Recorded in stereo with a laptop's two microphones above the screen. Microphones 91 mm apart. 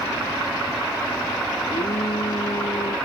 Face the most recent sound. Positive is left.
turn(degrees=75)  # may be behind; listen again after turning